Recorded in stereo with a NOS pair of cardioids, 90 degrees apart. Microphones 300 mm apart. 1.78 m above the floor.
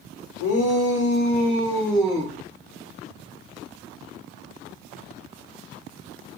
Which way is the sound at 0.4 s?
70° left.